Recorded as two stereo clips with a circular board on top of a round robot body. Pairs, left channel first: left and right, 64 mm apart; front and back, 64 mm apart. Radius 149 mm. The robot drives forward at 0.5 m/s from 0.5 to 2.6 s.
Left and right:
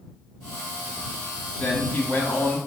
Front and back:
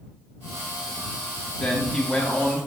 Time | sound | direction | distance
1.6 | a man speaking | 60° left | 1.4 m